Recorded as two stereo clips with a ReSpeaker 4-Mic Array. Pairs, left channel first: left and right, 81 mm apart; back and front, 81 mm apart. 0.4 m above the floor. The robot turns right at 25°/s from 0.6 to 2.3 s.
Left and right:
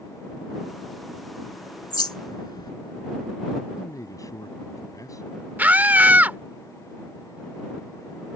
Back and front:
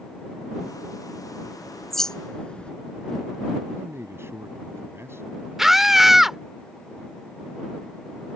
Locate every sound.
1.4 s a bird: 80° left; by 2.7 s 105° left
3.8 s a man speaking: 55° left
5.6 s a scream: 80° right